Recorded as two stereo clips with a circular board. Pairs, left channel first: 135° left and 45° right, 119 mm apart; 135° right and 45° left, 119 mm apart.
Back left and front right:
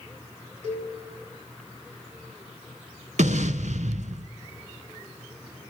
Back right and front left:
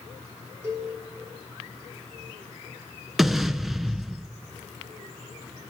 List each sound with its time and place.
0.6 s a cowbell: 25° right, 6.5 m
3.2 s an explosion: 45° right, 0.6 m